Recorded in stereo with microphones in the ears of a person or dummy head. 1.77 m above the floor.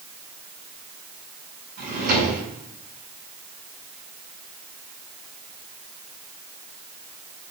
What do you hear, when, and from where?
1.8 s a drawer: 50° right (ahead or behind), 8.5 m